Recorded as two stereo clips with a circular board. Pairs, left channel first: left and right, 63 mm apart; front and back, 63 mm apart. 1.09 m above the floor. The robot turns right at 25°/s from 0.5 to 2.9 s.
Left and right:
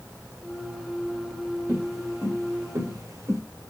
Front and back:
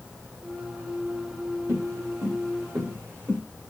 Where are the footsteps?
135° right, 5 m; by 3.4 s 120° right, 4 m.